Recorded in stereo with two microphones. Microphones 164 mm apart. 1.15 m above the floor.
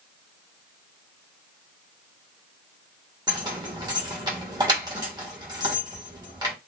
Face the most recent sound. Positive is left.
turn(degrees=-25)  # may be behind; listen again after turning